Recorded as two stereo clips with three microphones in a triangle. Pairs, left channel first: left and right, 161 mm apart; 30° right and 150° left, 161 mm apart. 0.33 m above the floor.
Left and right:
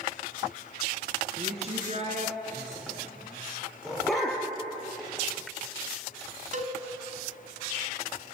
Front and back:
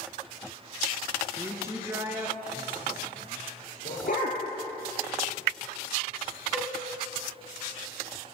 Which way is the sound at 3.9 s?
Straight ahead.